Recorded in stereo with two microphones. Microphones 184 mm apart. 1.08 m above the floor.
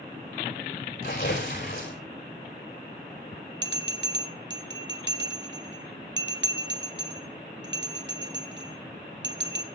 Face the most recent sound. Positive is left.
turn(degrees=-75)  # may be behind; listen again after turning